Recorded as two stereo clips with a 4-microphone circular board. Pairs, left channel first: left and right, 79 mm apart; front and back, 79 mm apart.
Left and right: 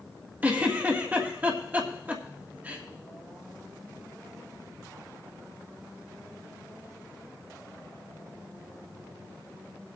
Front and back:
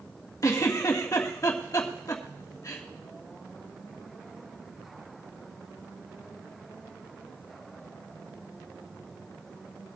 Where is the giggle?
30° right, 1.6 m.